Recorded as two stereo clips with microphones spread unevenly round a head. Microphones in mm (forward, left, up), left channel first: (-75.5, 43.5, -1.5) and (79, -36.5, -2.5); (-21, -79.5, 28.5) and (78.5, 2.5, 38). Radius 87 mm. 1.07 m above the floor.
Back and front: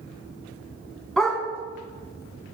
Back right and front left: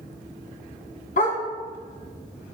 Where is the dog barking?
120° right, 2.5 m.